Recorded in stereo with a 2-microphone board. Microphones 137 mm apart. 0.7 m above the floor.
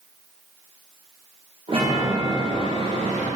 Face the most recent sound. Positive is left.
turn(degrees=-45)  # may be behind; listen again after turning